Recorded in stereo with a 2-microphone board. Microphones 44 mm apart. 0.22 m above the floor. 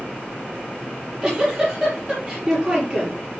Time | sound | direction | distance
0.9 | a giggle | 10° right (ahead or behind) | 6.5 m